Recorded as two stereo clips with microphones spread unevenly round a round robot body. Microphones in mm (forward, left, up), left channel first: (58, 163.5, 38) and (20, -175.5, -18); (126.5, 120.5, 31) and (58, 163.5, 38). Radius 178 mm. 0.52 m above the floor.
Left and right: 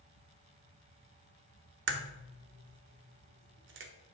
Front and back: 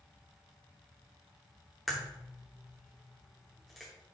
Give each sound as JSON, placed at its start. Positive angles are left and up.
{"t": 1.9, "sound": "a crack", "azimuth_deg": -120, "distance_m": 0.7}